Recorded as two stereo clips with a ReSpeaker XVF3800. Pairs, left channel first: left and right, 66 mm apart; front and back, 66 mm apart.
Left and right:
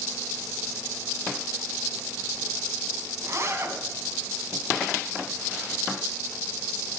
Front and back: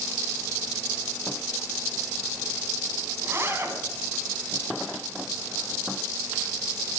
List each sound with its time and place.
3.2 s a zipper: 130° right, 2.5 m